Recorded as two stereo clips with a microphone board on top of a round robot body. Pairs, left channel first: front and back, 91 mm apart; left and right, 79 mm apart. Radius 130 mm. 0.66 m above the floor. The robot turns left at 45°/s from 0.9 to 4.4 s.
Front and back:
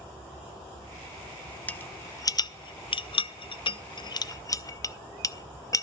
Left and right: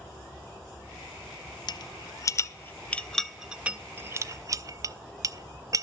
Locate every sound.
1.7 s a rattle: 75° left, 0.5 m; by 5.8 s 50° right, 0.5 m